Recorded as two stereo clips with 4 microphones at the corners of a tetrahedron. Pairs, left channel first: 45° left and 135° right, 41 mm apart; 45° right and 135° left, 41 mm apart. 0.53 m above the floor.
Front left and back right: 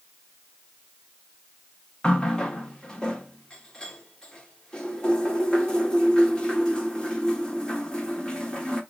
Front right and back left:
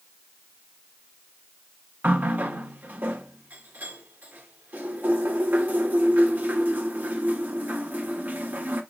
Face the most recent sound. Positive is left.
turn(degrees=110)